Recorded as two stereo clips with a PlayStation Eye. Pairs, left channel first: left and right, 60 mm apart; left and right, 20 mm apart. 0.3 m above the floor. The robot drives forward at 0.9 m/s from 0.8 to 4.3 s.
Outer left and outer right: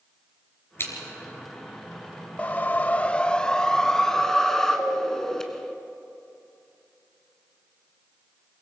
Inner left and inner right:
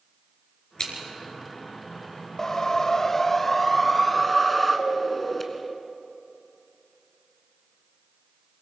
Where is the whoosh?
25° left (ahead or behind), 0.5 m; by 5.7 s 10° left (ahead or behind), 1.5 m.